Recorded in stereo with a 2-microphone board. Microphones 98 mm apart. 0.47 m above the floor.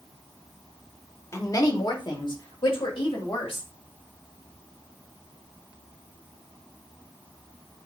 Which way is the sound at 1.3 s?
30° left (ahead or behind).